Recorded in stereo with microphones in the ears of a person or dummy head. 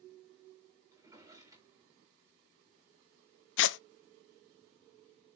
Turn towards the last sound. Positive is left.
turn(degrees=75)  # may be behind; listen again after turning